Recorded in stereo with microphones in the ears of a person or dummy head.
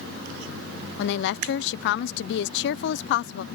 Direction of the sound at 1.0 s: 60° left (ahead or behind).